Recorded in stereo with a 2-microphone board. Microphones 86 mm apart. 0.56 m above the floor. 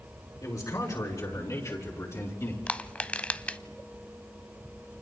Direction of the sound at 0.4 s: 45° left (ahead or behind).